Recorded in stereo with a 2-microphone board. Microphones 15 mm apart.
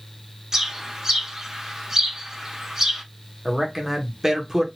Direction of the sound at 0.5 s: 30° right (ahead or behind).